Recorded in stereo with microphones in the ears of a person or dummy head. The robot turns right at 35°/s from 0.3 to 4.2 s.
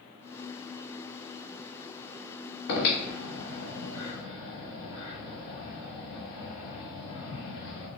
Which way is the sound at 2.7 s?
60° left (ahead or behind).